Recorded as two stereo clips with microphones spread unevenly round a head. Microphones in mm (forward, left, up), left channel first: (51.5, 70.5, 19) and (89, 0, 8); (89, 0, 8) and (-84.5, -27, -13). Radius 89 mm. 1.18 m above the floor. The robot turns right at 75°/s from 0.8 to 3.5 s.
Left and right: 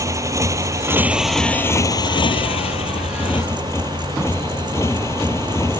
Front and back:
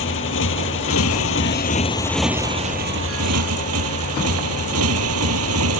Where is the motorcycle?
10° right; by 5.8 s 165° right.